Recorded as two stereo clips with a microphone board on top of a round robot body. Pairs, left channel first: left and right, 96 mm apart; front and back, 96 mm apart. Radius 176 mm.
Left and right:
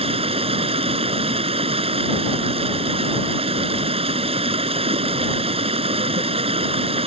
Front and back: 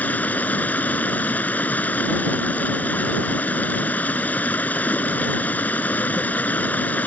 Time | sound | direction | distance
0.0 | running water | 75° right | ?